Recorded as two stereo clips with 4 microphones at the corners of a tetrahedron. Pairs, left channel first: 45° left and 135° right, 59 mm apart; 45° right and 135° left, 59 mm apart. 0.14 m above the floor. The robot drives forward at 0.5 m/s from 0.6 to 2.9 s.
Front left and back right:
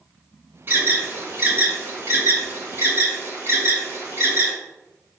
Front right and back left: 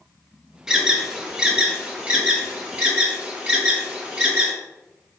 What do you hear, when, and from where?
0.7 s an alarm: 155° right, 2.5 m; by 4.5 s 165° right, 3 m